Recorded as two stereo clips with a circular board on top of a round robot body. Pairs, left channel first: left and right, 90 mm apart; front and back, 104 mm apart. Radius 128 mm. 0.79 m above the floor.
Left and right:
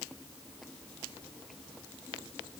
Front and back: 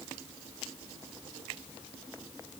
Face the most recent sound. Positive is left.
No sound to turn to.